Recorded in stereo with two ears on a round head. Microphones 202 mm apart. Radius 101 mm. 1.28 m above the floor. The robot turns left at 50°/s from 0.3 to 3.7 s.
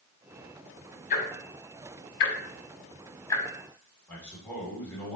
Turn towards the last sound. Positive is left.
turn(degrees=5)  # may be behind; listen again after turning